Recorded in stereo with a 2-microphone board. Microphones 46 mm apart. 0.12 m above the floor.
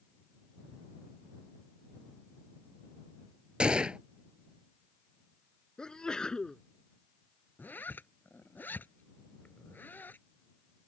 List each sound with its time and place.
3.6 s a gunshot: 20° right (ahead or behind)
5.8 s a sneeze: 15° left (ahead or behind)
7.6 s a zipper: 45° left (ahead or behind)